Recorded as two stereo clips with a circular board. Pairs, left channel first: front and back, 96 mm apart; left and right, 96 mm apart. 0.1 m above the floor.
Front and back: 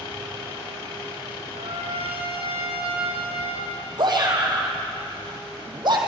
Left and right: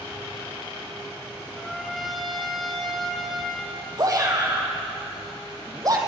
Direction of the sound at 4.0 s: 140° right.